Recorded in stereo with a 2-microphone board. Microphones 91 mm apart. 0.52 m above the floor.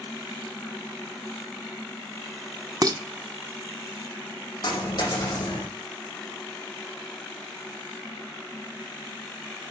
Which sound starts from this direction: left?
A dropped coin, at 4.6 s.